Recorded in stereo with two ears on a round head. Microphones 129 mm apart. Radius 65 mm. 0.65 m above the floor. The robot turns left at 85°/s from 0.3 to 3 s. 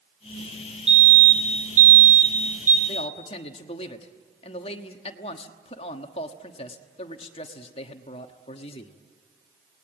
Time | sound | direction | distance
0.9 | a fire alarm | 5° right | 3 m
2.9 | a man speaking | 40° left (ahead or behind) | 1.3 m